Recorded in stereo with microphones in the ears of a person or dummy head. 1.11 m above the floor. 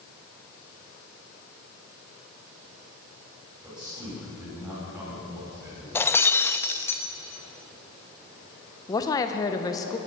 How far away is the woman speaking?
About 0.9 m.